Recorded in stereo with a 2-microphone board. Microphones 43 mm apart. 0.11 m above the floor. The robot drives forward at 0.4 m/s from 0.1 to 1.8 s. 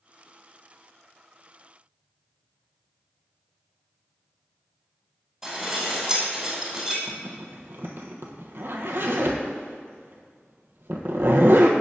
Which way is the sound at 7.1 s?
60° right (ahead or behind).